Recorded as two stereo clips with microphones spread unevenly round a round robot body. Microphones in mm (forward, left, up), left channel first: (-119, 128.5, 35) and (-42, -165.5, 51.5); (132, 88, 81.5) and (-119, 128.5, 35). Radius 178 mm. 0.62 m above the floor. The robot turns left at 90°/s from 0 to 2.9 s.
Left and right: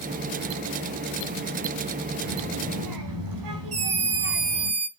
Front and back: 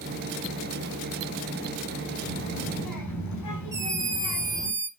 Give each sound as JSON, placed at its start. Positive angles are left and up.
{"t": 2.2, "sound": "a child speaking", "azimuth_deg": 20, "distance_m": 4.5}
{"t": 3.7, "sound": "a scream", "azimuth_deg": -115, "distance_m": 3.5}